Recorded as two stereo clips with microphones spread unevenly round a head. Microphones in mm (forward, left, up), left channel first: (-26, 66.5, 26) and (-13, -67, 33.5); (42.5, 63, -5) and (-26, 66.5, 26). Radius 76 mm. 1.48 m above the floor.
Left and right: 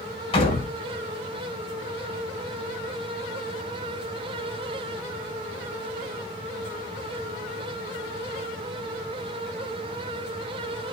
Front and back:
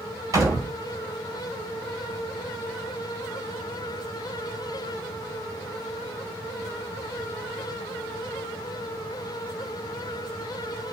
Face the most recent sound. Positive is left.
turn(degrees=145)